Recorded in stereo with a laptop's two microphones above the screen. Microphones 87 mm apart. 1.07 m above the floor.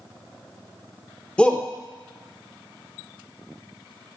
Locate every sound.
1.4 s a shout: 10° left (ahead or behind), 0.6 m